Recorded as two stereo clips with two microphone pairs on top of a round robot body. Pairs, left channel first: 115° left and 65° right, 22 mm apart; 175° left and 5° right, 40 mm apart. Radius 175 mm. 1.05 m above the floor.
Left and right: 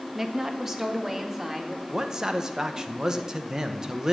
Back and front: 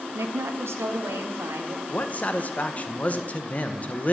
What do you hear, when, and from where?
0.1 s a woman speaking: 5° left, 1.3 m; by 1.8 s straight ahead, 2.5 m
1.9 s a man speaking: 135° right, 1.1 m